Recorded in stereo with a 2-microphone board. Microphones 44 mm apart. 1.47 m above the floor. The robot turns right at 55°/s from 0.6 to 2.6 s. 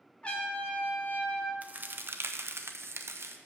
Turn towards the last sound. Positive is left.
turn(degrees=-90)